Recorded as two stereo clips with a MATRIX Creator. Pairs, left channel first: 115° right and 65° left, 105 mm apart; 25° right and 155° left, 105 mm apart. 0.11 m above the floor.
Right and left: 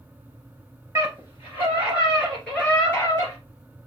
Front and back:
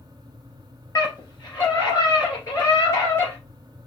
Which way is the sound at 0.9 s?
10° left.